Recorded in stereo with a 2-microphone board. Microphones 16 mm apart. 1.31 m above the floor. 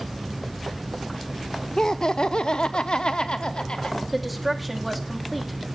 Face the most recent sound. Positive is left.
turn(degrees=-5)  # may be behind; listen again after turning